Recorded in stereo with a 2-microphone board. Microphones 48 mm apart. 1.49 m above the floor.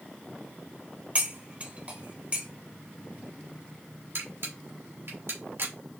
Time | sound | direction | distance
1.1 | cutlery clinking | 30° right (ahead or behind) | 1.0 m
4.2 | a camera shutter | 60° right (ahead or behind) | 1.9 m